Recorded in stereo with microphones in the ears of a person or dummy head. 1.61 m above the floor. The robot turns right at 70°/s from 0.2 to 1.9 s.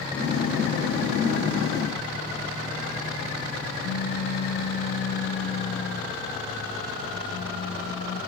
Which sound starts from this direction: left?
A pop, at 3.8 s.